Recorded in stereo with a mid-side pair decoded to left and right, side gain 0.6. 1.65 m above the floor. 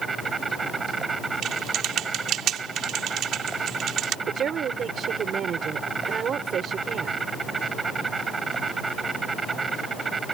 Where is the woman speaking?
45° right.